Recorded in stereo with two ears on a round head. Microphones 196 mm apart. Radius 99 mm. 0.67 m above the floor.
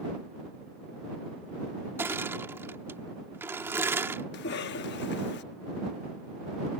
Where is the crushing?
10° right (ahead or behind).